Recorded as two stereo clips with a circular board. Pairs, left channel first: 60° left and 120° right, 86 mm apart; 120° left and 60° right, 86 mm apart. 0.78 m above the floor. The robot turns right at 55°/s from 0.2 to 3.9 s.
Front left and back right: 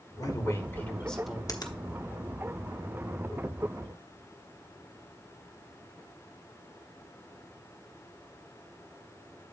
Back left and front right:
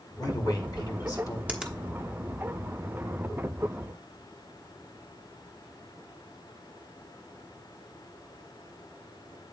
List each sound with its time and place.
0.2 s a man speaking: 90° left, 1.7 m; by 1.4 s 155° left, 1.7 m
1.5 s a finger snap: 15° left, 1.0 m; by 1.8 s 30° left, 1.0 m